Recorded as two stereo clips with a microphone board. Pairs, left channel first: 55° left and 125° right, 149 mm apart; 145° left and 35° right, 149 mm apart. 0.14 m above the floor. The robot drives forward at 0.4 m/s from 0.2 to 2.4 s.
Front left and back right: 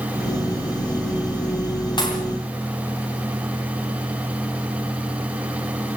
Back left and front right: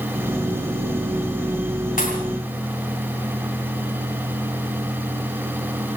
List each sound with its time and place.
2.0 s a pop: 115° left, 8 m